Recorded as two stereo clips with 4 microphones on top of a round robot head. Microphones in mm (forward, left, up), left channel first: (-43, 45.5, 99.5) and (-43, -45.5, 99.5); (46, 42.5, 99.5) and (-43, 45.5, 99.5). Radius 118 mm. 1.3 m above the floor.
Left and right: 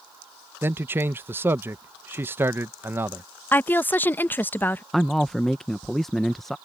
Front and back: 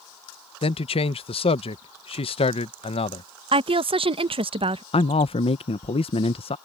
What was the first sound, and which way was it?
A man speaking, 20° right.